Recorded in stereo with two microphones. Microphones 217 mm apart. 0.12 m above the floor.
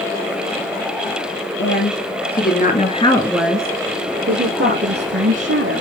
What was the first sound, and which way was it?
A woman speaking, 60° left (ahead or behind).